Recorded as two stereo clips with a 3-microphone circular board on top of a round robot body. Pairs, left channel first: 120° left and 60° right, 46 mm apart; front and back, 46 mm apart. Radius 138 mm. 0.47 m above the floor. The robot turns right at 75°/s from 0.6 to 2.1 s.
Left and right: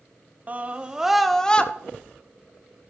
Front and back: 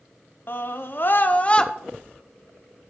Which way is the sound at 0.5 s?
15° right.